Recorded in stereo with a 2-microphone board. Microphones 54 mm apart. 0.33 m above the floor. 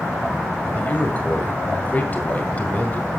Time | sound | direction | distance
0.8 | a man speaking | 30° left (ahead or behind) | 2.0 m